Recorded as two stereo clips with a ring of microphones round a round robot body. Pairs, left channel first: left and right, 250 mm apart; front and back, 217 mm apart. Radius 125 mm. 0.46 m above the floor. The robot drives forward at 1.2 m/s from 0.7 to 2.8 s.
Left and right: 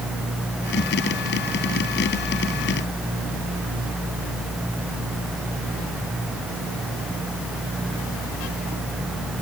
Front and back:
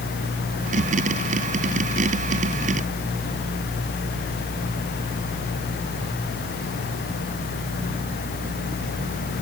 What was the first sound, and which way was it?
Only background noise.